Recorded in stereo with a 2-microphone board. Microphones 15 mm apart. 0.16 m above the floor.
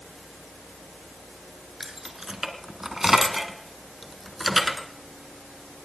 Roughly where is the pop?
I don't hear a pop.